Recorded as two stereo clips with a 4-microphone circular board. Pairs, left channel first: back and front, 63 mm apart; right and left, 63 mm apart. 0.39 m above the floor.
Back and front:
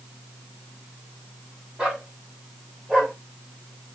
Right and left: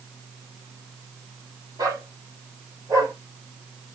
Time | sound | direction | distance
1.8 | a dog barking | 75° left | 6 m